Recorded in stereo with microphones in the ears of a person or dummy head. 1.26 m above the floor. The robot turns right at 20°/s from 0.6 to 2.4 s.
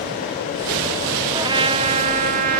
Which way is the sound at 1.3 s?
20° right (ahead or behind).